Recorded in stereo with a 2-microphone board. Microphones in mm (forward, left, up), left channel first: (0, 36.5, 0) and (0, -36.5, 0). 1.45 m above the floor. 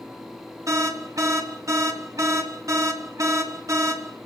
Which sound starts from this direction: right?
An alarm, at 0.7 s.